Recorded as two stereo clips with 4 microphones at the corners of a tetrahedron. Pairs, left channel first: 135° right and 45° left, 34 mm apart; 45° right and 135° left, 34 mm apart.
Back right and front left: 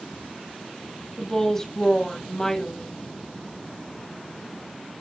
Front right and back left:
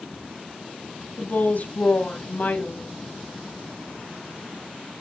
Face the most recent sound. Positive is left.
turn(degrees=-60)